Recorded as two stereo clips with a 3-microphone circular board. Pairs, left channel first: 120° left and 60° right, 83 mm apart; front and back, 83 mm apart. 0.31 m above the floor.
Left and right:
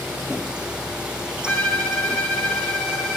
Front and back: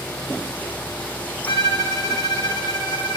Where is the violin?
45° left, 3.5 m.